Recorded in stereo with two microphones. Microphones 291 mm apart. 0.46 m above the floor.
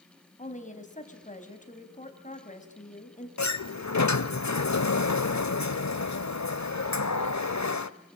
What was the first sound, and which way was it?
A woman speaking, 25° left (ahead or behind).